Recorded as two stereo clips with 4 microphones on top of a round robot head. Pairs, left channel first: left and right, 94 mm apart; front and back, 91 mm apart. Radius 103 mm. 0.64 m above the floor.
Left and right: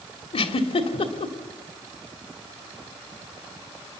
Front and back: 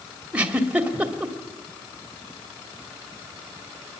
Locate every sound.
0.3 s a giggle: 105° left, 2.5 m